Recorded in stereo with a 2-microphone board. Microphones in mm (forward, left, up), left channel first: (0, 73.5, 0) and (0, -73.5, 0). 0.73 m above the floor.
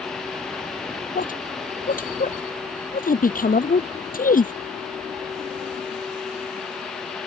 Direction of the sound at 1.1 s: 75° left (ahead or behind).